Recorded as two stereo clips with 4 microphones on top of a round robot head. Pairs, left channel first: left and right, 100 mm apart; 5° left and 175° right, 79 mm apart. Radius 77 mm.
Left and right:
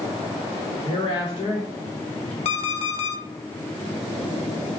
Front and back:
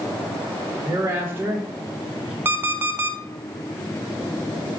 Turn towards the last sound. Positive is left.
turn(degrees=120)